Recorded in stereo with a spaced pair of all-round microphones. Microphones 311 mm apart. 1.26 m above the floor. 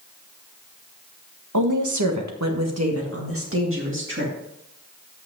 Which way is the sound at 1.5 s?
75° right (ahead or behind).